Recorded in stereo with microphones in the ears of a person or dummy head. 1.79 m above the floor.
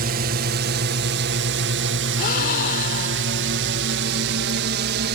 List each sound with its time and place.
0.0 s a drone: 50° right (ahead or behind); by 5.2 s 60° right (ahead or behind)
2.2 s a gasp: 55° left (ahead or behind)